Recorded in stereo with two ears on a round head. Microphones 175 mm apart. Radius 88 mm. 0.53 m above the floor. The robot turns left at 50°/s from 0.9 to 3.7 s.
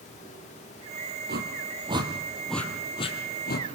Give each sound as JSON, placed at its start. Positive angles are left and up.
{"t": 1.3, "sound": "a whoosh", "side_deg": -60, "distance_m": 3.5}